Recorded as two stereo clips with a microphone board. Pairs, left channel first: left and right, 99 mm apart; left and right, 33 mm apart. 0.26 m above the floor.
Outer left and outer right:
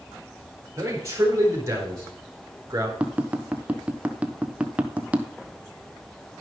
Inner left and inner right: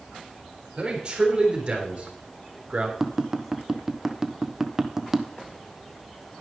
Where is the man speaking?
30° right (ahead or behind), 4.5 m.